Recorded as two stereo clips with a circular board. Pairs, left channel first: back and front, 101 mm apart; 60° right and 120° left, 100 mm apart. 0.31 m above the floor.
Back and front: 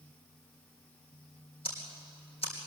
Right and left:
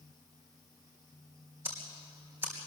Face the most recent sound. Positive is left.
turn(degrees=-170)